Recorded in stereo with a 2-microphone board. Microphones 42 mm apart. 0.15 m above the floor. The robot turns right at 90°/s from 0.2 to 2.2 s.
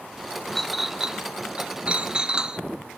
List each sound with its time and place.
0.6 s a clink: 10° left (ahead or behind), 0.6 m; by 2.6 s 20° right (ahead or behind), 0.6 m